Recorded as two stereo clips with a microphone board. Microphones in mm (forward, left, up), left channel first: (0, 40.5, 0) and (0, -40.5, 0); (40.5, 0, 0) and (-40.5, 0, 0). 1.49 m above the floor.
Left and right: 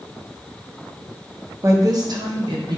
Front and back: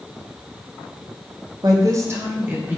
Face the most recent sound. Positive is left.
turn(degrees=-110)